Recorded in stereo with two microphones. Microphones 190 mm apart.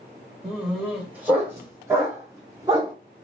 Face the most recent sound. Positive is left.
turn(degrees=-20)  # may be behind; listen again after turning